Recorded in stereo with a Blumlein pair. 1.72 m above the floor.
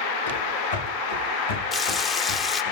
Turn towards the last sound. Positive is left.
turn(degrees=15)